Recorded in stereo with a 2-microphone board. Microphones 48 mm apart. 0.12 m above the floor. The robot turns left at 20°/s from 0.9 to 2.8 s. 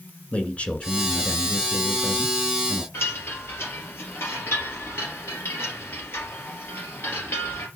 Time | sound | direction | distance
0.3 | a man speaking | 65° left | 1.5 m
2.9 | a chime | 65° left (ahead or behind) | 3 m